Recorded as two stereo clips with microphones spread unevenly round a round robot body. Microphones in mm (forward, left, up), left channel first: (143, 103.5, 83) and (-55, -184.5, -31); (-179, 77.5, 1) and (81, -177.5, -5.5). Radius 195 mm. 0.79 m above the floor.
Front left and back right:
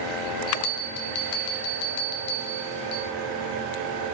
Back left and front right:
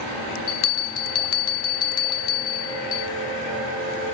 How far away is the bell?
About 1.3 m.